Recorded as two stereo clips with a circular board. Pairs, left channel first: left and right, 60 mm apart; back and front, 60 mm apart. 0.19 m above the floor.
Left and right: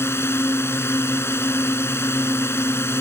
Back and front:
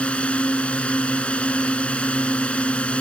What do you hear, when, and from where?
0.0 s a drone: 115° left